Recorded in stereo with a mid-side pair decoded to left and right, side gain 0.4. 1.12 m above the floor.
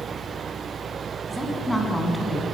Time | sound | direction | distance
1.3 | a woman speaking | straight ahead | 10 m